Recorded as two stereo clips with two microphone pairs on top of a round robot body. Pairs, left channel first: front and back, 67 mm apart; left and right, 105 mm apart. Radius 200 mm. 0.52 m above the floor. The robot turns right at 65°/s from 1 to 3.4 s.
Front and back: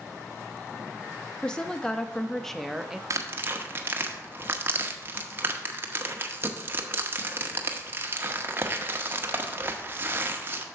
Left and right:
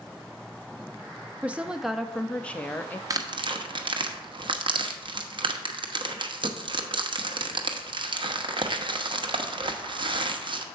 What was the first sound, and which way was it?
A woman speaking, 20° right.